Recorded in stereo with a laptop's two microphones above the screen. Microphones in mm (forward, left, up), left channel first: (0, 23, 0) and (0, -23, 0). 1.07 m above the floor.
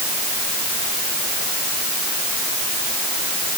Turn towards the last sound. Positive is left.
No sound to turn to.